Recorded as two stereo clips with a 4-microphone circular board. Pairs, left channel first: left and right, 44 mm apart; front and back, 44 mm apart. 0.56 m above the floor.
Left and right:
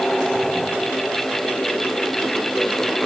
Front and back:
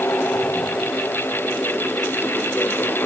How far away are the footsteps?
No footsteps in this recording.